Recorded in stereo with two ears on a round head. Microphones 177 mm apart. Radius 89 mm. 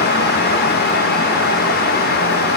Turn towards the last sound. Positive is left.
No sound to turn to.